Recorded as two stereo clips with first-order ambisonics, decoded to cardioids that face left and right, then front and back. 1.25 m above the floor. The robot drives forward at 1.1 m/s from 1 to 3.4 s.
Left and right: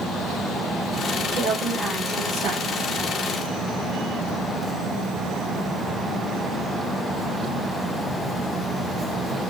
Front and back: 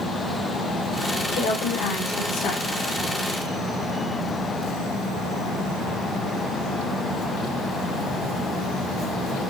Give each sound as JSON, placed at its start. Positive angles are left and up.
{"t": 1.3, "sound": "a woman speaking", "azimuth_deg": -20, "distance_m": 2.5}